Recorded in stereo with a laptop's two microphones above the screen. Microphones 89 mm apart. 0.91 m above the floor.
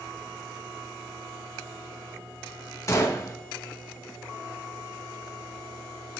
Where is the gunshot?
35° left (ahead or behind), 1.1 m.